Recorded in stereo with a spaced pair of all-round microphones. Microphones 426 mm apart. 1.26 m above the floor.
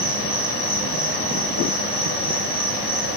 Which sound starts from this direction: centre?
An insect, at 0.0 s.